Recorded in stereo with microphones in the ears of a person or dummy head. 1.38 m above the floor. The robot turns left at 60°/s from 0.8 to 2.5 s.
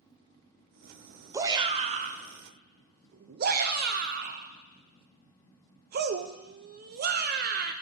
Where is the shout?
15° right (ahead or behind), 0.6 m; by 7.7 s 50° right (ahead or behind), 0.6 m.